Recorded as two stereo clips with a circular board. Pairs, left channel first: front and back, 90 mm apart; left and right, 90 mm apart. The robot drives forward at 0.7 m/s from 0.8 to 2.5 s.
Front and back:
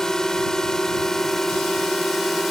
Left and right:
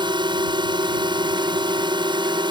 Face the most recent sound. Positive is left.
turn(degrees=-90)